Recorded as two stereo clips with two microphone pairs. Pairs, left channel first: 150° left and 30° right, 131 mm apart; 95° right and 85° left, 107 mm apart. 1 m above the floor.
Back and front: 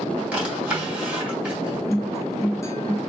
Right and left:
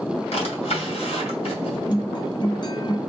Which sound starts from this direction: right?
A drawer, at 0.3 s.